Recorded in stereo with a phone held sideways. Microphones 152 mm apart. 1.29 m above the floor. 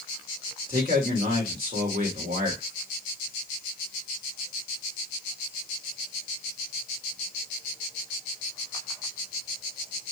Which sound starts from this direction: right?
A man speaking, at 0.7 s.